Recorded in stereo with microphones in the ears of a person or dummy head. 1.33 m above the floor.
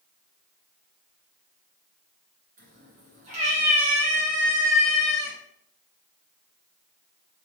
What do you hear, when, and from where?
2.6 s a cat meowing: 40° right (ahead or behind), 2.5 m; by 5.3 s 10° right (ahead or behind), 1.2 m